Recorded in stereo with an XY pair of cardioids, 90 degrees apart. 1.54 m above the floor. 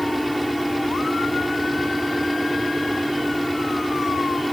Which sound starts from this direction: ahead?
A fan, at 0.0 s.